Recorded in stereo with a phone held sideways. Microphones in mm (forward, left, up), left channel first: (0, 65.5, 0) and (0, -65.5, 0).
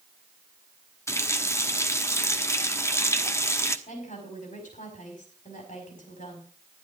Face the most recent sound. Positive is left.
turn(degrees=75)  # may be behind; listen again after turning